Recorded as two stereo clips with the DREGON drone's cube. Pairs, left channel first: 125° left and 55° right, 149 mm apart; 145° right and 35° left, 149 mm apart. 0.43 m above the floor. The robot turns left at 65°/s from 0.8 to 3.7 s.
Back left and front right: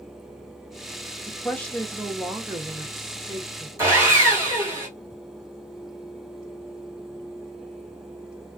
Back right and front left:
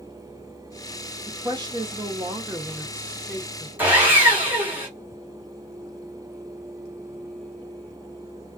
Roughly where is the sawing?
Ahead right.